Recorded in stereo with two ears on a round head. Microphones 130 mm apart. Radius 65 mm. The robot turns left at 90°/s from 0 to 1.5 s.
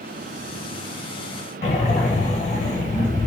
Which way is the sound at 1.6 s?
50° left (ahead or behind).